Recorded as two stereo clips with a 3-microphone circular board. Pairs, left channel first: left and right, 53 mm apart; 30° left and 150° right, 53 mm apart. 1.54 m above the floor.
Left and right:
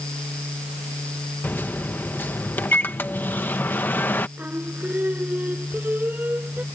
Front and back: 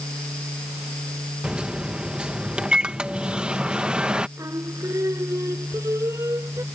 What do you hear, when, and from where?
1.4 s a microwave: 140° left
4.4 s singing: 145° right